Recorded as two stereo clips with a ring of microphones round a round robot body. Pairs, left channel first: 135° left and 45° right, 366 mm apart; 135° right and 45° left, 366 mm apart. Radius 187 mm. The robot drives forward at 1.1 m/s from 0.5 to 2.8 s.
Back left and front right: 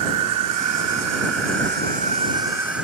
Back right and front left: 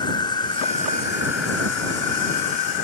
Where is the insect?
60° right; by 2.9 s 130° right.